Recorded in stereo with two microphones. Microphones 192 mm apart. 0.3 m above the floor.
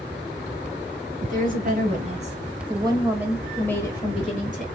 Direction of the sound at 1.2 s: 50° right (ahead or behind).